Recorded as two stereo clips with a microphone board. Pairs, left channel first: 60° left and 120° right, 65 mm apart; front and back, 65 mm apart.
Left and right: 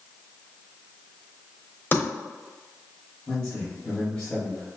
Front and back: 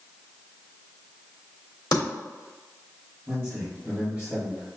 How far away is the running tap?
No running tap in this recording.